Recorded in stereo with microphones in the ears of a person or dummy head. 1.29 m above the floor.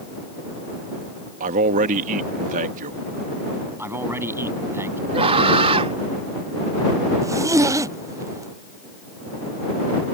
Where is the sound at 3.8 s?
10° right (ahead or behind).